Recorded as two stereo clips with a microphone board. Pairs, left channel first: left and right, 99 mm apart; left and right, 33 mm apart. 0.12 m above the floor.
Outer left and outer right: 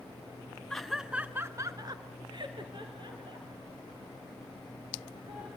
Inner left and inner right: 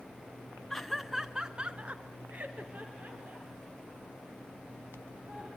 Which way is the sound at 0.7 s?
5° left (ahead or behind).